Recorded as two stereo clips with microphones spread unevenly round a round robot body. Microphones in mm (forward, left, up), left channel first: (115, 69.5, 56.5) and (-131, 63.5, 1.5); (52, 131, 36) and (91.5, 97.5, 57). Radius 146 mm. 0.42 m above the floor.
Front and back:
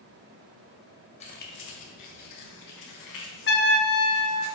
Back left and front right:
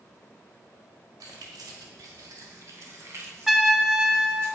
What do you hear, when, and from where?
1.2 s keys jangling: 70° right, 1.6 m; by 4.5 s straight ahead, 5 m
3.5 s a trumpet: 50° left, 1.4 m